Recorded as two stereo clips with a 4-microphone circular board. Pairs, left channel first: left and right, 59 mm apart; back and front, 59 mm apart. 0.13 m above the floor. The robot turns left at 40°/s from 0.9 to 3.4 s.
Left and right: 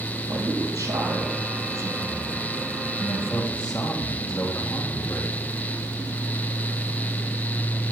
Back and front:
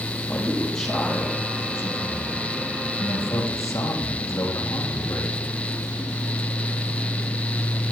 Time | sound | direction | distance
0.3 | a man speaking | 100° right | 3.5 m